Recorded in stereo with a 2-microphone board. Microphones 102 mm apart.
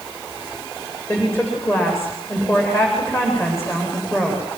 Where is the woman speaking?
25° left (ahead or behind), 9 m.